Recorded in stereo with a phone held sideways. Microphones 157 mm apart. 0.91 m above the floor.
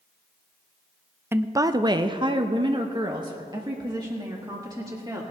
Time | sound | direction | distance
1.3 | a woman speaking | 15° right (ahead or behind) | 0.5 m